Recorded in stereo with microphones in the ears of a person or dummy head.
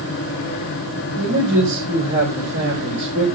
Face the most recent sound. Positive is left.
turn(degrees=-80)